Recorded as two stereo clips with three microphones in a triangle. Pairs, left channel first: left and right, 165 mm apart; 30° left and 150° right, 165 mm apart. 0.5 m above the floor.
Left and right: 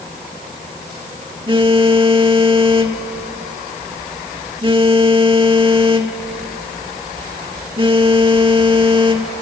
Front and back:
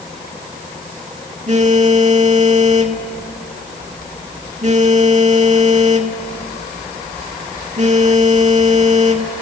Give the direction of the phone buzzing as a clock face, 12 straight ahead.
5 o'clock.